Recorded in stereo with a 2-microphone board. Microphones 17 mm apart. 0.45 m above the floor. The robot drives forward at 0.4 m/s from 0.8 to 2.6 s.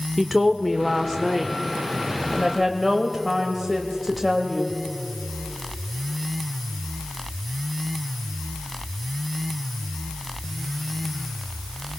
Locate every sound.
0.2 s a woman speaking: 5° left (ahead or behind), 1.0 m